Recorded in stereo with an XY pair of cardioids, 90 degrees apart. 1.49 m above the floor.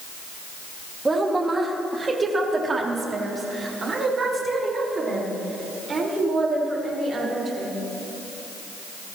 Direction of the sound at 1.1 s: 25° right.